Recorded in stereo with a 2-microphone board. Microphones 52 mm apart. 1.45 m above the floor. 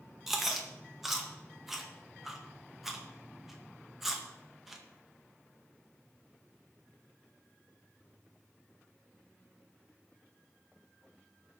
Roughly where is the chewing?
Centre.